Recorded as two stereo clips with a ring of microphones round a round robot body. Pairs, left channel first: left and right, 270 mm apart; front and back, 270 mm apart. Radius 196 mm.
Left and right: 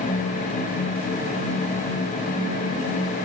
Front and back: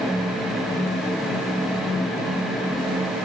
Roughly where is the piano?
No piano in this recording.